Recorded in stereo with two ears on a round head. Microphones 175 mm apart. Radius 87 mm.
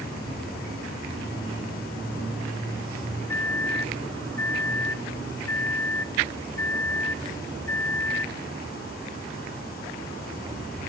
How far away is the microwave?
About 0.6 m.